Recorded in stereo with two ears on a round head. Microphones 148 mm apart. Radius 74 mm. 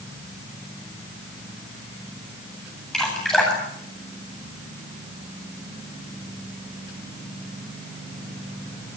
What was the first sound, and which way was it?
Dripping, 5° left (ahead or behind).